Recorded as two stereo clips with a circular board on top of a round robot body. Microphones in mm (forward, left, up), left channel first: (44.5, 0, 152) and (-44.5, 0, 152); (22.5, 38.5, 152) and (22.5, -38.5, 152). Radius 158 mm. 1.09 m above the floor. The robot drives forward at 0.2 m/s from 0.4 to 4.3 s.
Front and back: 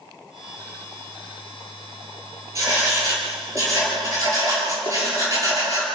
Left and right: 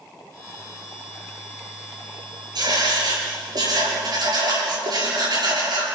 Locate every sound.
2.5 s writing: 125° right, 6.5 m